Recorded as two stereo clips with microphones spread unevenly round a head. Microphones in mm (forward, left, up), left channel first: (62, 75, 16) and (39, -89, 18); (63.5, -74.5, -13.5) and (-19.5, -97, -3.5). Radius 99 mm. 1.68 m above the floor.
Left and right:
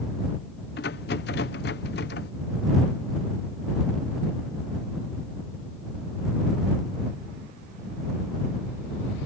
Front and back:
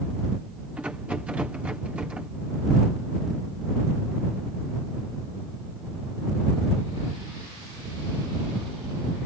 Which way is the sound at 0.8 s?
115° left.